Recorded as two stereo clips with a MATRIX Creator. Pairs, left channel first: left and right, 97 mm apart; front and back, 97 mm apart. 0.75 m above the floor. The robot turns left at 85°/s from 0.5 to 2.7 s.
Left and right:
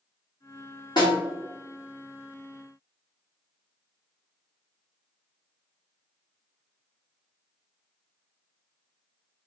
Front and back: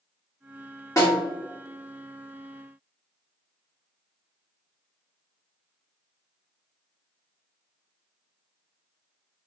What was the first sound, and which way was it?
A snare drum, 55° left.